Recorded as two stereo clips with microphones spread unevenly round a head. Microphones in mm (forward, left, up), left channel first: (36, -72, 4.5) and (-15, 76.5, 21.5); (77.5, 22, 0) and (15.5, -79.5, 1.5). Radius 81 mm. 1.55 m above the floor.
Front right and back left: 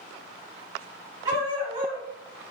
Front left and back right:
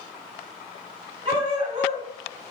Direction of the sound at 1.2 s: 175° left.